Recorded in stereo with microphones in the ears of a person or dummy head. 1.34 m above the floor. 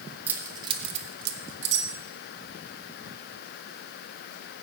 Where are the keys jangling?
15° right (ahead or behind), 1.5 m; by 1.9 s 75° right (ahead or behind), 1.8 m.